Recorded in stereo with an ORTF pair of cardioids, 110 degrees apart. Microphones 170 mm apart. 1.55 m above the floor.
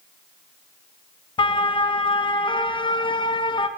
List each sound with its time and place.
1.4 s a siren: 30° left, 2 m